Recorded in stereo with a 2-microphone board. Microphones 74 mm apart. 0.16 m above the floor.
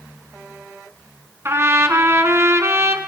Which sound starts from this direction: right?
A trumpet, at 1.4 s.